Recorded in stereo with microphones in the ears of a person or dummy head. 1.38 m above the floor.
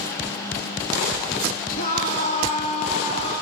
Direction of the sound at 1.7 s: 45° left (ahead or behind).